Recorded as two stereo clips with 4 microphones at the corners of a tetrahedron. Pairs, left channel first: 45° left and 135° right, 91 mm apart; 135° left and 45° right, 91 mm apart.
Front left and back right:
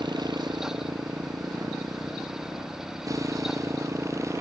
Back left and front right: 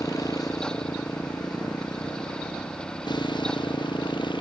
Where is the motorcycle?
175° right; by 4.4 s 170° left.